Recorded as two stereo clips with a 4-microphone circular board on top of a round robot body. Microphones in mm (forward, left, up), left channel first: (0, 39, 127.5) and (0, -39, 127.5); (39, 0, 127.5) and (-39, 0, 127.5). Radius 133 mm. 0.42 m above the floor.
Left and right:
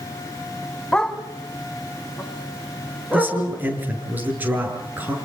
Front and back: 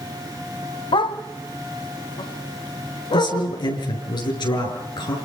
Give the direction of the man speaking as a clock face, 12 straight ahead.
1 o'clock.